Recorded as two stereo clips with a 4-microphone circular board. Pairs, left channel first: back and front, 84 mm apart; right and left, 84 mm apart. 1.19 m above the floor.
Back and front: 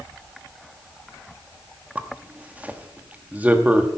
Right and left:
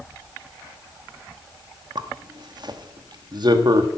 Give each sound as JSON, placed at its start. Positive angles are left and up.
{"t": 1.9, "sound": "a zipper", "azimuth_deg": 70, "distance_m": 1.0}